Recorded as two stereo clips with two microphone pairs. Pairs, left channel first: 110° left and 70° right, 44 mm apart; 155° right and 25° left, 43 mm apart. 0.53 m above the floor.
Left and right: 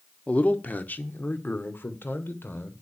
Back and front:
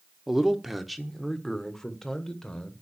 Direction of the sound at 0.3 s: 95° left.